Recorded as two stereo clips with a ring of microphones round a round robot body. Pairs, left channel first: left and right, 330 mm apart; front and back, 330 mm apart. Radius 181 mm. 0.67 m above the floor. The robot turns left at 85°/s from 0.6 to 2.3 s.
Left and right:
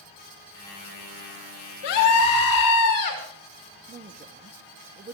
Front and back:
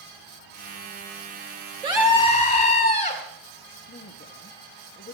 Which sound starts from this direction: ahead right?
A woman speaking, at 3.9 s.